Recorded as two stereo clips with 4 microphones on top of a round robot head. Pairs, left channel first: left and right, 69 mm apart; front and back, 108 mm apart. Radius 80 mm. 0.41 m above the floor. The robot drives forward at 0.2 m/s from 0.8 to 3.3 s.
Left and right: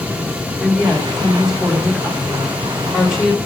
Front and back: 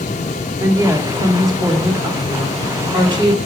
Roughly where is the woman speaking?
Behind right.